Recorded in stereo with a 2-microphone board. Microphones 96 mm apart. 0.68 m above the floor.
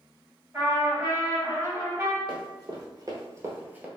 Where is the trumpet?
20° right (ahead or behind), 1.6 m.